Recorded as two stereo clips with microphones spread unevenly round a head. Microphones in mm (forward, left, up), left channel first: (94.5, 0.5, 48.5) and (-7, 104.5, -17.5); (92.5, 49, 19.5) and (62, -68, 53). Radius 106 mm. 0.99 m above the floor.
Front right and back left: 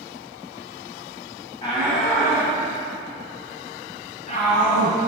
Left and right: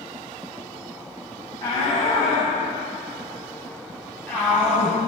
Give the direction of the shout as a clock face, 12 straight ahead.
12 o'clock.